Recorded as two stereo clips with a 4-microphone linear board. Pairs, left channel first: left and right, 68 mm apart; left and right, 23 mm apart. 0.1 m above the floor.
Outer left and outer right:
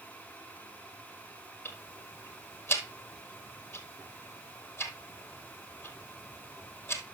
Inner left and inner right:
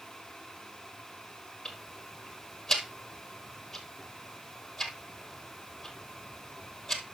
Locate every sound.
1.6 s ticking: 30° left (ahead or behind), 1.2 m